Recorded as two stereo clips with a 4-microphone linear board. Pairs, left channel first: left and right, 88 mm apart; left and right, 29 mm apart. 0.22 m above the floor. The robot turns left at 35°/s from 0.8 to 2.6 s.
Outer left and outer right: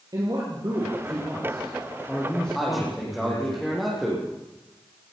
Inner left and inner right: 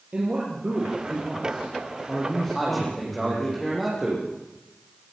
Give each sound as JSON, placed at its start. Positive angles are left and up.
{"t": 0.1, "sound": "a man speaking", "azimuth_deg": -130, "distance_m": 6.5}
{"t": 2.5, "sound": "a man speaking", "side_deg": 0, "distance_m": 9.5}